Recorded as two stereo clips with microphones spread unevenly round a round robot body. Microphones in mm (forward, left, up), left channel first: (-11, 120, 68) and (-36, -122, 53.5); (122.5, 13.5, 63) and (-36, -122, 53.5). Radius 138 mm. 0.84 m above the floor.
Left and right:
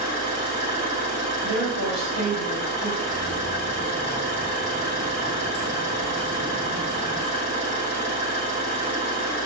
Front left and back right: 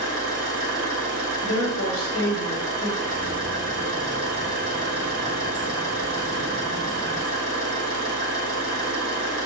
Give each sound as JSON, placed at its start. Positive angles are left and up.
{"t": 0.0, "sound": "an engine running", "azimuth_deg": 120, "distance_m": 2.0}
{"t": 1.4, "sound": "a woman speaking", "azimuth_deg": 65, "distance_m": 1.5}
{"t": 3.0, "sound": "keys jangling", "azimuth_deg": 90, "distance_m": 1.6}